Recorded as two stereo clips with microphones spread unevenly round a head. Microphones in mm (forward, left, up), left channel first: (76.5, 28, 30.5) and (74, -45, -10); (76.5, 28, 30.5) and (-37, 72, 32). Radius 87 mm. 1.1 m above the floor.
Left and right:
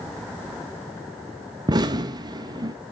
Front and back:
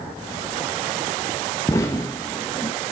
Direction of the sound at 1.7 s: 90° right.